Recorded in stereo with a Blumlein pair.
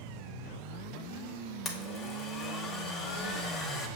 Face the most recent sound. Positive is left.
turn(degrees=25)